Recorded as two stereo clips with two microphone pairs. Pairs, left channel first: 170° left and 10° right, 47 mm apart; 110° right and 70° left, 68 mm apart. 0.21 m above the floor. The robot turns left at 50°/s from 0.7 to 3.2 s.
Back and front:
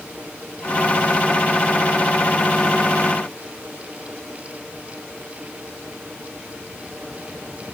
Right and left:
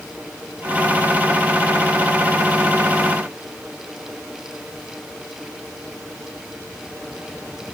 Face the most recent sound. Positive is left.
No sound to turn to.